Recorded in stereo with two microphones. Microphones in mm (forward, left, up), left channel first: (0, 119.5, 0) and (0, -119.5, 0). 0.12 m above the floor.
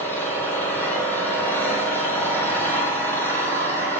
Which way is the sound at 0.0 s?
10° left (ahead or behind).